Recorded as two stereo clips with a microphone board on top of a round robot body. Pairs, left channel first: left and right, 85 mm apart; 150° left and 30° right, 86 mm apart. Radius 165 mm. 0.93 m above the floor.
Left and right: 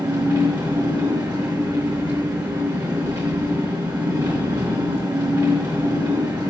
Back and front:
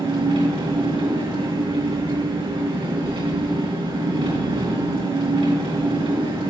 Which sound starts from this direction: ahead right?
An engine running, at 0.0 s.